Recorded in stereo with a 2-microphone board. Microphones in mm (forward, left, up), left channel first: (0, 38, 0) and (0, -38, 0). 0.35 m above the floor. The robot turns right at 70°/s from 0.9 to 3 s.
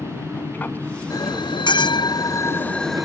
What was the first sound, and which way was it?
An aircraft, 25° left (ahead or behind).